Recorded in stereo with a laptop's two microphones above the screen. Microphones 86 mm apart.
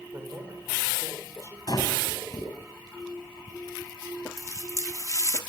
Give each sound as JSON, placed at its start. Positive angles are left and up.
{"t": 0.1, "sound": "a man speaking", "side_deg": -35, "distance_m": 4.0}
{"t": 1.7, "sound": "breathing", "side_deg": 50, "distance_m": 4.5}
{"t": 4.4, "sound": "a running tap", "side_deg": 40, "distance_m": 1.3}